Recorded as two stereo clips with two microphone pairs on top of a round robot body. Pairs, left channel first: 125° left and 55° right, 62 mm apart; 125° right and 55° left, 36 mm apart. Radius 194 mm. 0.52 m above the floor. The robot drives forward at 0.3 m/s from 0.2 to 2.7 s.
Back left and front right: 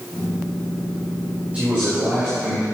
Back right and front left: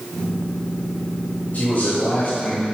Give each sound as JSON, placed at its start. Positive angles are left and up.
{"t": 1.5, "sound": "a man speaking", "azimuth_deg": -120, "distance_m": 4.0}